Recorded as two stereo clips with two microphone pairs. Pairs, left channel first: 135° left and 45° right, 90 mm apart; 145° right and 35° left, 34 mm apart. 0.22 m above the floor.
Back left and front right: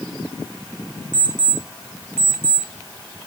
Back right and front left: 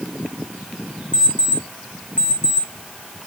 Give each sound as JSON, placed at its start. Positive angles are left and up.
{"t": 1.1, "sound": "an alarm clock", "azimuth_deg": -115, "distance_m": 7.0}